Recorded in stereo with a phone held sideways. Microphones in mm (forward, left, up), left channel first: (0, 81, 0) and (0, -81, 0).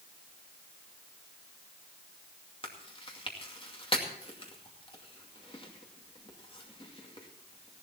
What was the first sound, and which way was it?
Chewing, 35° left (ahead or behind).